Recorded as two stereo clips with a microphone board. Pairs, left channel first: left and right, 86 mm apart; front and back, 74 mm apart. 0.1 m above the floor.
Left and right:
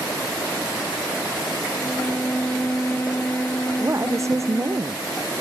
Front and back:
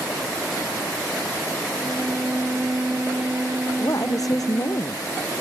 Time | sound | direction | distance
1.8 | a violin | 140° left | ?
3.8 | a woman speaking | 35° right | ?